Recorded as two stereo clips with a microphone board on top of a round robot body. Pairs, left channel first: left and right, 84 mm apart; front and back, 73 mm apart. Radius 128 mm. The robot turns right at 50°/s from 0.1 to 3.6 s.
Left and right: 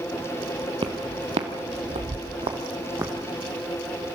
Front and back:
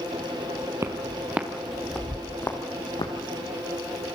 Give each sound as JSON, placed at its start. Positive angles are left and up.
{"t": 0.8, "sound": "footsteps", "azimuth_deg": -125, "distance_m": 1.0}